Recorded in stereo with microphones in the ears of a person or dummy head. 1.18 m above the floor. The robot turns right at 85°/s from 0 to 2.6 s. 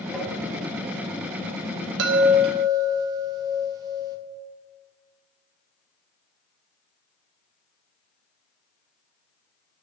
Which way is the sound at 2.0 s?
70° right.